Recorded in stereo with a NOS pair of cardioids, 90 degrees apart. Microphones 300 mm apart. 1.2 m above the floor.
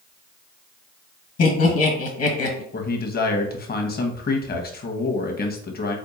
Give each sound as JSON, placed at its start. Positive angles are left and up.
{"t": 1.4, "sound": "laughter", "azimuth_deg": 50, "distance_m": 1.6}
{"t": 2.7, "sound": "a man speaking", "azimuth_deg": 30, "distance_m": 1.0}